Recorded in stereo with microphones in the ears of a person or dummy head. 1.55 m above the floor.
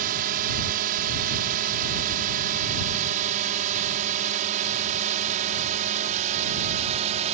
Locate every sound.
0.0 s a drone: 45° right (ahead or behind); by 7.3 s 35° right (ahead or behind)